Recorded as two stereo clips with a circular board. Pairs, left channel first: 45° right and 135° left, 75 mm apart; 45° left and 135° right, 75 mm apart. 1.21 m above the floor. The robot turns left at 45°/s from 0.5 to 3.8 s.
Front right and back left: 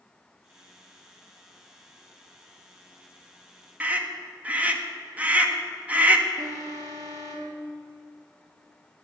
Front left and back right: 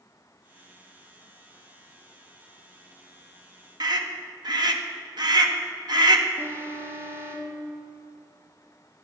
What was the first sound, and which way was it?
A scream, 155° right.